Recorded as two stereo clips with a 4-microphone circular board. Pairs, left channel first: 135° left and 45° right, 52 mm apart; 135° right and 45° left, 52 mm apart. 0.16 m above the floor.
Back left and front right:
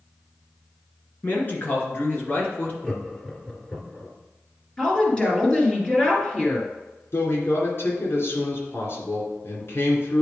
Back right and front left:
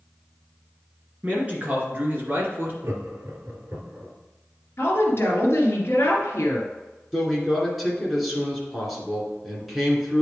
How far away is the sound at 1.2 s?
About 2 m.